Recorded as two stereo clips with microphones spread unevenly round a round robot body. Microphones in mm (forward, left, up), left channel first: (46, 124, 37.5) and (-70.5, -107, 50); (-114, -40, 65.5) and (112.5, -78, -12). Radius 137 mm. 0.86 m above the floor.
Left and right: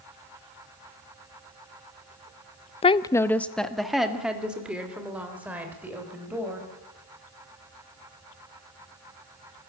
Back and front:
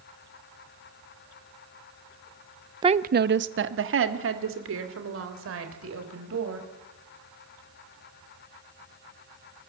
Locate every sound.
2.8 s a woman speaking: 15° left, 0.6 m; by 6.7 s 35° right, 5 m